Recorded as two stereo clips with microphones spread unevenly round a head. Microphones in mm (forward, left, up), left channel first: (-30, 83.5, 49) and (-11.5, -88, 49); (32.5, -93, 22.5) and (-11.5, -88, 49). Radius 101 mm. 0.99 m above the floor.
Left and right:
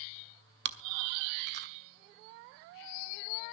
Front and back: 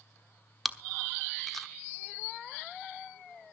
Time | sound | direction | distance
0.7 | chewing | 105° right | 1.2 m